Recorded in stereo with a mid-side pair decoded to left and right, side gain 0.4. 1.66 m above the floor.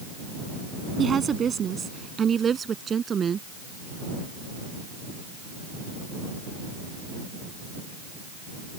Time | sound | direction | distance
1.0 | a woman speaking | 50° right | ?